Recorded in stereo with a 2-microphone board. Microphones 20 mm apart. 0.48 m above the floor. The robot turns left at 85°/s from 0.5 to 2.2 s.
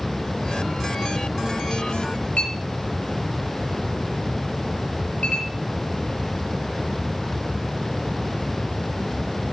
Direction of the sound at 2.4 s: 85° left.